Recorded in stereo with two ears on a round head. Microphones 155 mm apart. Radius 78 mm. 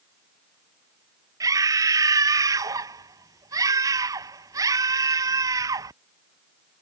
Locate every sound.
1.4 s a scream: 20° right (ahead or behind)